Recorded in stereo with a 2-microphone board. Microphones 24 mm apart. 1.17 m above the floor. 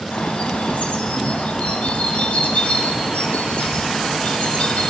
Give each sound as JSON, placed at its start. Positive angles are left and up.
{"t": 0.1, "sound": "a bird", "side_deg": 65, "distance_m": 2.5}